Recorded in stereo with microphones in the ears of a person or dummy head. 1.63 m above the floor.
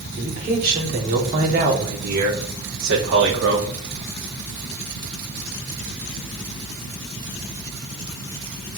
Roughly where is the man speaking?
Right.